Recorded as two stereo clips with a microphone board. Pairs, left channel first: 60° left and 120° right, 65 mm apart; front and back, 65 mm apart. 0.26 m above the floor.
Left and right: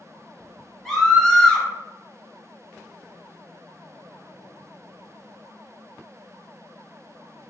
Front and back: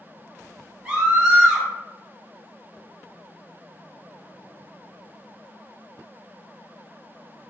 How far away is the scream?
About 1.2 m.